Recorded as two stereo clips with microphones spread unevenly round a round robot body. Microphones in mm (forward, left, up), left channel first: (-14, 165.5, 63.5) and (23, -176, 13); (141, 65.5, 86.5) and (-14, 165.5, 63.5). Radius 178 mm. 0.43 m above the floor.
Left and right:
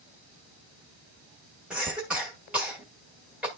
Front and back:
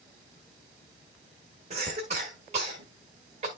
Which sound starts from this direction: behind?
A cough, at 1.7 s.